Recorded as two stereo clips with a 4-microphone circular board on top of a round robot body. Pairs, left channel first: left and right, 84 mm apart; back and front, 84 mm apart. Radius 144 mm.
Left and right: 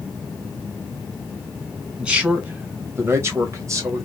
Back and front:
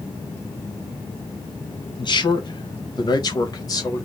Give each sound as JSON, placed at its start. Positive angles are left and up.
{"t": 2.0, "sound": "a man speaking", "azimuth_deg": -165, "distance_m": 1.7}